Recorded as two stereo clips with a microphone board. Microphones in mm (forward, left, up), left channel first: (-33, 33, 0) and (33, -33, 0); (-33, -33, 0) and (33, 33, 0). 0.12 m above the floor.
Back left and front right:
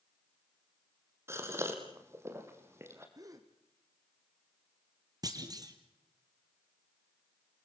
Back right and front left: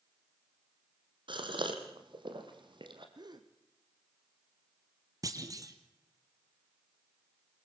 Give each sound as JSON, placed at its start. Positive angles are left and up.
{"t": 1.3, "sound": "a gasp", "azimuth_deg": 15, "distance_m": 3.5}
{"t": 3.1, "sound": "a gasp", "azimuth_deg": 5, "distance_m": 2.0}
{"t": 5.2, "sound": "a clunk", "azimuth_deg": -5, "distance_m": 2.5}